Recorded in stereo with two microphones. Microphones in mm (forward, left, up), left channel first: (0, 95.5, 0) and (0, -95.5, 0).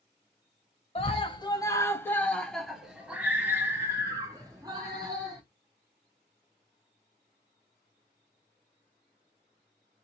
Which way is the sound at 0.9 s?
30° left (ahead or behind).